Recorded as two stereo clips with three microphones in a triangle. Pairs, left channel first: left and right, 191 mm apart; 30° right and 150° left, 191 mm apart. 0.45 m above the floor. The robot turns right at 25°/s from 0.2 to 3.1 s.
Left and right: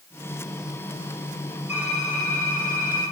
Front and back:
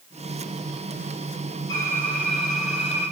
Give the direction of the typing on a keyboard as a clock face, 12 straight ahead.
11 o'clock.